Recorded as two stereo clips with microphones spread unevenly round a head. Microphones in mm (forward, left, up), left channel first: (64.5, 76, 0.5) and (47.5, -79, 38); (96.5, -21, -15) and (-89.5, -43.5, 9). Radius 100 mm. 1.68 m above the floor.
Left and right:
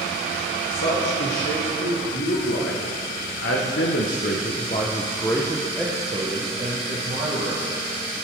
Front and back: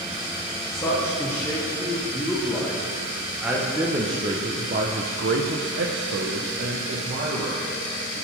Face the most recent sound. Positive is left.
turn(degrees=-140)